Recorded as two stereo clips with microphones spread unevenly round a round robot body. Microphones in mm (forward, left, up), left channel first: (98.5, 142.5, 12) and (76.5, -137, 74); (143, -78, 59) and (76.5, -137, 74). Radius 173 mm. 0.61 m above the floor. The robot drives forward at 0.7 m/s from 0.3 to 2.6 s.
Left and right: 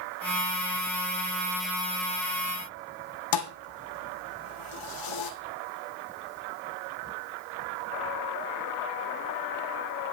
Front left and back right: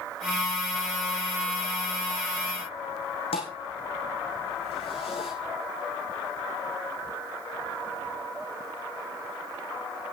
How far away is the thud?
About 2.0 m.